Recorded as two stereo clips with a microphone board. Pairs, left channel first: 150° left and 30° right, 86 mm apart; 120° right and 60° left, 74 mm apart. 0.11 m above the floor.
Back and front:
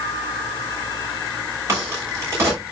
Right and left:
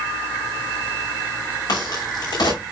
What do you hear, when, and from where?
1.7 s a crack: 85° right, 7.5 m